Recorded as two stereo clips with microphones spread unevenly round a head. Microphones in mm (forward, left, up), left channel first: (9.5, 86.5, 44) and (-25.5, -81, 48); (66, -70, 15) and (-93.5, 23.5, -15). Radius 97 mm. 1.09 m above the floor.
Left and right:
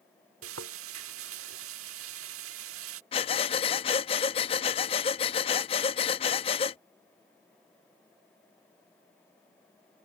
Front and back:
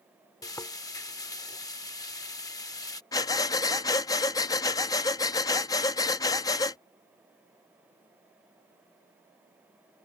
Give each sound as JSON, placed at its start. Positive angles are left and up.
{"t": 0.4, "sound": "frying", "azimuth_deg": -95}
{"t": 3.1, "sound": "breathing", "azimuth_deg": 25}